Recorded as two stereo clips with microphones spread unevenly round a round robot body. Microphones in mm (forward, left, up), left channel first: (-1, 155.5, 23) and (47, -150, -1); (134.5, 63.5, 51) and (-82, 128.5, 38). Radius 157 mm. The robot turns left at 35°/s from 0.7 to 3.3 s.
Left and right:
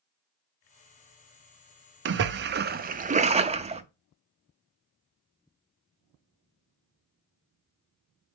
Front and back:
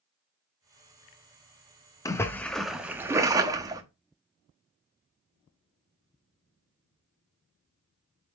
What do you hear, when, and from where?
2.0 s a splash: 90° right, 0.6 m; by 3.8 s 135° right, 0.6 m